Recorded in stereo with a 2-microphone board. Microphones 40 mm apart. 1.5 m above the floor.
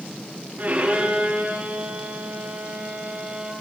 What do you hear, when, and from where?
0.6 s a violin: 45° right (ahead or behind), 9.5 m